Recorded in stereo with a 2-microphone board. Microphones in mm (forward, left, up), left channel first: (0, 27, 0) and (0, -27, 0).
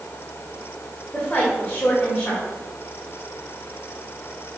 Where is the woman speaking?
30° left (ahead or behind), 1.7 m.